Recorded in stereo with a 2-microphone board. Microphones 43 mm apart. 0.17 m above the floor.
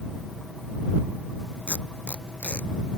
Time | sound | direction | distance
1.7 | tape being pulled | 30° left (ahead or behind) | ?